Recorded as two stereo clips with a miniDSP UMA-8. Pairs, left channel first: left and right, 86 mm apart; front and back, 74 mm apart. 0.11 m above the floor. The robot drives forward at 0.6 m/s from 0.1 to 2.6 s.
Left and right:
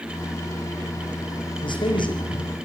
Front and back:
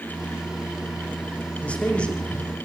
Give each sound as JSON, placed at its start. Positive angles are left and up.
{"t": 1.6, "sound": "a man speaking", "azimuth_deg": 75, "distance_m": 7.0}